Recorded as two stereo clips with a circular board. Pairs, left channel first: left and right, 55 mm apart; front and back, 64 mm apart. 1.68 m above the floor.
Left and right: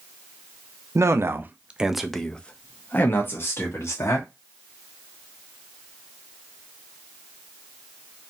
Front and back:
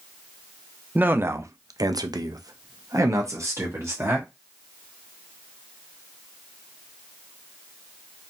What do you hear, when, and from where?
0.9 s a man speaking: 120° right, 0.7 m; by 4.3 s 130° left, 1.6 m